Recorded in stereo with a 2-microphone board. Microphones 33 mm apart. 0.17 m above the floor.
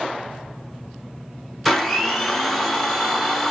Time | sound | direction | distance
1.6 | a blender | centre (ahead or behind) | 0.8 m